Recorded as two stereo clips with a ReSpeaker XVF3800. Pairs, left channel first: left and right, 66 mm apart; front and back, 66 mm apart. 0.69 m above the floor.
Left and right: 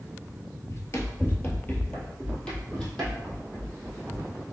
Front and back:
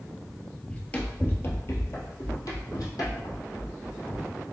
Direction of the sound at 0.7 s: 75° left.